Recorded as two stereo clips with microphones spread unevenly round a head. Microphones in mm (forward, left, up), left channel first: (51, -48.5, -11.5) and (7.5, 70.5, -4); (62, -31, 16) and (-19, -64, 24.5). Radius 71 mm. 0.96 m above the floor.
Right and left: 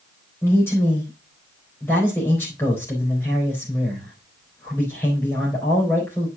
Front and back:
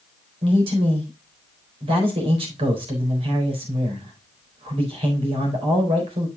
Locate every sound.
0.4 s a man speaking: 145° right, 4 m